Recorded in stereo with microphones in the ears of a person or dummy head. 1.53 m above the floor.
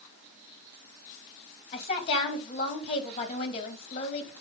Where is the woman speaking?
35° left (ahead or behind), 3 m.